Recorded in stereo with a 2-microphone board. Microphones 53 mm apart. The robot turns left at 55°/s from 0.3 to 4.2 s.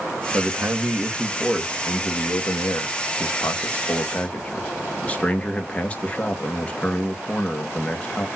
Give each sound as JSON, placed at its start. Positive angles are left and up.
{"t": 0.3, "sound": "a man speaking", "azimuth_deg": -120, "distance_m": 1.3}